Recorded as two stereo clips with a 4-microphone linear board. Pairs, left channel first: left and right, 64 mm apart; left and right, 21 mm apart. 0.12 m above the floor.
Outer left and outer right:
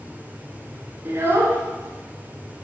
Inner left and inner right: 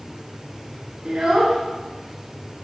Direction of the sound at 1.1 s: 40° right (ahead or behind).